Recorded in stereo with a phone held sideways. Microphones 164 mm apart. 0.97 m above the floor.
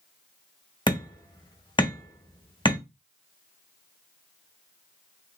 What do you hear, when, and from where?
0.9 s hammering: 30° left (ahead or behind), 0.8 m